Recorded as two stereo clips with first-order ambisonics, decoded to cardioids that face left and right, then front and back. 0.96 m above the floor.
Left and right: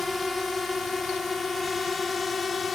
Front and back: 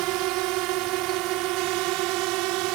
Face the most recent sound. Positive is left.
turn(degrees=165)